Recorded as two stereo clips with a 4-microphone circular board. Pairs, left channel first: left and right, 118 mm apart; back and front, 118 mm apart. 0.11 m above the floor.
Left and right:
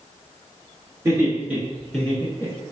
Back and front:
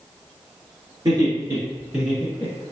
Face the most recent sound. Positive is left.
turn(degrees=120)